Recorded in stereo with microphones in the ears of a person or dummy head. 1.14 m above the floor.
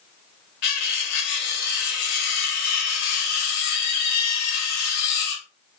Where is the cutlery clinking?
50° left (ahead or behind), 0.6 m.